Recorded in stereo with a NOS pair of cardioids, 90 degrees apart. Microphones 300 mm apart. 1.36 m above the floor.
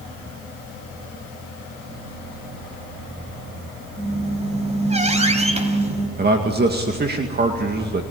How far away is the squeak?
About 3.5 m.